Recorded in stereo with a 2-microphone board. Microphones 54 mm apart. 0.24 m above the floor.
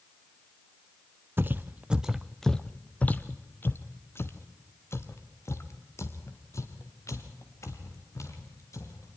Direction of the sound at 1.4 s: 40° right (ahead or behind).